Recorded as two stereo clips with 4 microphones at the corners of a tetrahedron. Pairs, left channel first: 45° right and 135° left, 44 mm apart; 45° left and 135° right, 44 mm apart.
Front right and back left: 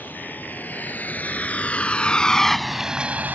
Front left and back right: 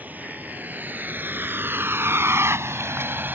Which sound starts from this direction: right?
A vehicle, at 0.0 s.